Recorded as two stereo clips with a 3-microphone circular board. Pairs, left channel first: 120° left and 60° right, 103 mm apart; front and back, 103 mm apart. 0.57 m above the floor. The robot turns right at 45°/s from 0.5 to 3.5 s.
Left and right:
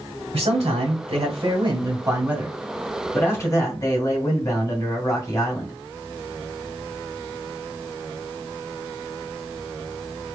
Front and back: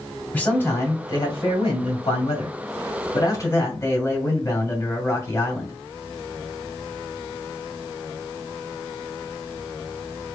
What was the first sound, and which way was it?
A man speaking, 75° right.